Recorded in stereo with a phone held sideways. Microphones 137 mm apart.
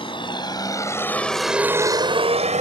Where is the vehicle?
40° left (ahead or behind); by 2.6 s 60° right (ahead or behind).